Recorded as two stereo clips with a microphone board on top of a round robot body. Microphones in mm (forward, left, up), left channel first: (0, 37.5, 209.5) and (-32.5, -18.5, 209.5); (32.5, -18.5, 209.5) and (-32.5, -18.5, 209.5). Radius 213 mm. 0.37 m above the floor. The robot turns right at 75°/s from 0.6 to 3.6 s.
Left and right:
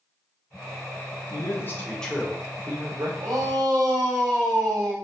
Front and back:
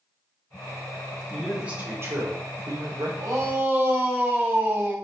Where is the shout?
155° right, 3.5 m; by 5.0 s 120° right, 3.5 m.